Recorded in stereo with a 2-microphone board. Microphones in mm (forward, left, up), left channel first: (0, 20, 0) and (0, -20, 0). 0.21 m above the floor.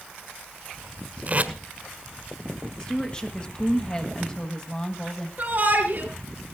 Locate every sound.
1.3 s tape being pulled: 35° right (ahead or behind), 1.4 m
2.8 s a woman speaking: 25° left (ahead or behind), 1.2 m
5.4 s a shout: 45° right (ahead or behind), 4.5 m